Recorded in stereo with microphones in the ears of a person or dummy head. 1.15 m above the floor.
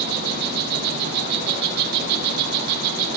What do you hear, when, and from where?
0.0 s an insect: 55° right (ahead or behind), 8 m